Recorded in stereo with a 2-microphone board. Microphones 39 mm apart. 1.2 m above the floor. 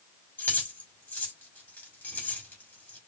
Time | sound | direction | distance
0.4 | keys jangling | 50° left (ahead or behind) | 2.5 m